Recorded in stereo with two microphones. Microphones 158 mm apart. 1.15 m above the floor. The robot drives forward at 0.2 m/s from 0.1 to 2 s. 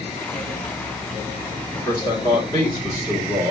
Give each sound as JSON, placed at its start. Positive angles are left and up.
{"t": 1.8, "sound": "a man speaking", "side_deg": 25, "distance_m": 1.2}